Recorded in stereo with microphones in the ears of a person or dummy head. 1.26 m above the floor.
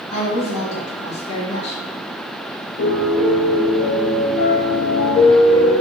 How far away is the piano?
About 1.2 m.